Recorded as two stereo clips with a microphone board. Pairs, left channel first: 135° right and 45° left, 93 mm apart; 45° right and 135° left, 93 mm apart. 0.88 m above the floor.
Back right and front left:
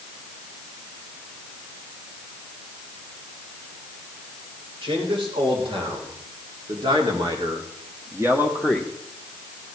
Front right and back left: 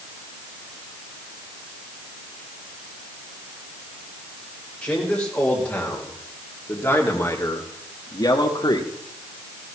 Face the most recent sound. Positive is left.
turn(degrees=-45)